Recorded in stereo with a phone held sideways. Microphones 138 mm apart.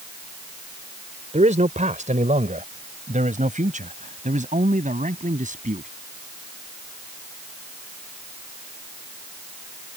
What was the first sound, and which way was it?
A man speaking, 60° right (ahead or behind).